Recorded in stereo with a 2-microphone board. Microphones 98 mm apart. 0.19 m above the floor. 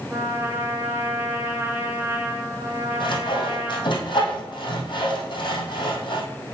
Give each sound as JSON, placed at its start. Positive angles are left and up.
{"t": 0.1, "sound": "a trumpet", "side_deg": -20, "distance_m": 1.5}
{"t": 3.0, "sound": "sawing", "side_deg": 60, "distance_m": 2.5}